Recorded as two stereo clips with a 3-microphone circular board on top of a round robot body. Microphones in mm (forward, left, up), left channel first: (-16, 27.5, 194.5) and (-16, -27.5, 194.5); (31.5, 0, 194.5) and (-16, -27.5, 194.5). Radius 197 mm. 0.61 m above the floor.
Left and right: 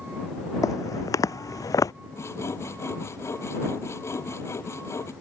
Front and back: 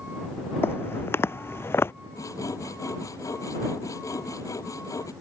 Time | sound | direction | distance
0.6 | footsteps | 80° left | ?
2.1 | sawing | 55° left | ?